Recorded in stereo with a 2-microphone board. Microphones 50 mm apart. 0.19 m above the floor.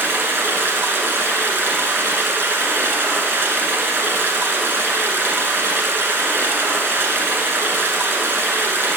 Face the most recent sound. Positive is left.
turn(degrees=-50)  # may be behind; listen again after turning